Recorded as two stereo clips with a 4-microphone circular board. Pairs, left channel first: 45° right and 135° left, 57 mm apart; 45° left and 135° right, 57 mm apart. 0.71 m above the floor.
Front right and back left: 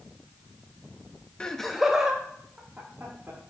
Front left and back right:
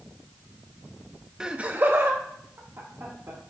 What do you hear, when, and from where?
1.4 s laughter: 80° right, 0.7 m; by 3.4 s 165° right, 2.0 m